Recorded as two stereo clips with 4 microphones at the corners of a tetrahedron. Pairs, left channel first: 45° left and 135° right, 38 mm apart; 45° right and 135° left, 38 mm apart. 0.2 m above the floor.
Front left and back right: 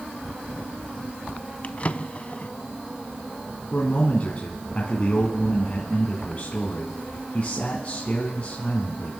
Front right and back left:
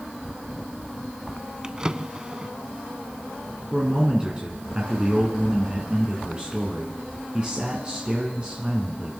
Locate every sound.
1.6 s a drawer: 75° left, 0.6 m
3.7 s a man speaking: 80° left, 2.5 m